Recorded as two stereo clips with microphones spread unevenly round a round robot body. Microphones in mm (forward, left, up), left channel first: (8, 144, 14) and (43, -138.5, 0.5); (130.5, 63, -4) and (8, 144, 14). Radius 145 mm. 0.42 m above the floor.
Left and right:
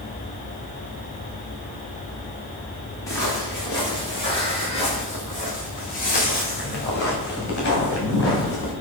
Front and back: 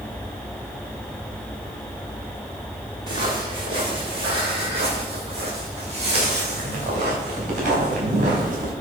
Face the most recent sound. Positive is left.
turn(degrees=145)